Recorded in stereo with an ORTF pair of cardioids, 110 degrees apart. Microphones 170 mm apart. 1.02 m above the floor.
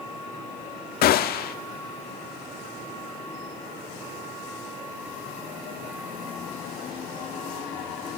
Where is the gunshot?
65° left, 1.4 m.